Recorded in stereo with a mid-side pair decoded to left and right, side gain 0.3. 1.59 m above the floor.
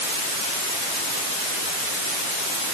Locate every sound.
Only background noise.